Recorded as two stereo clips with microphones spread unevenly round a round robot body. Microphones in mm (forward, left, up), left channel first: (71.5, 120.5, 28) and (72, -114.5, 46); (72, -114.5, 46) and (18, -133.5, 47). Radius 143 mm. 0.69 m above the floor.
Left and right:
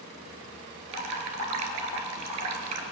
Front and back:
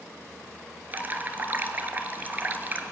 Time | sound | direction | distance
0.9 | dripping | 105° right | 1.7 m